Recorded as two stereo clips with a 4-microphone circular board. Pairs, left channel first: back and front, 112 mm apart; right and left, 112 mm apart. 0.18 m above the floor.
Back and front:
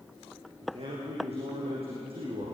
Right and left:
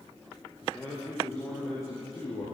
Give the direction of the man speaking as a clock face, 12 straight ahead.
1 o'clock.